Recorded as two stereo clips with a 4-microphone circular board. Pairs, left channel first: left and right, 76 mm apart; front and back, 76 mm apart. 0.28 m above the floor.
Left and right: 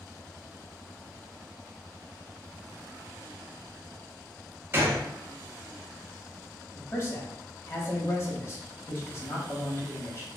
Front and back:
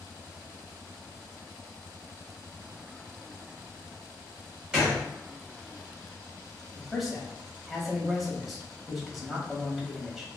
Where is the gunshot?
105° right, 1.5 m.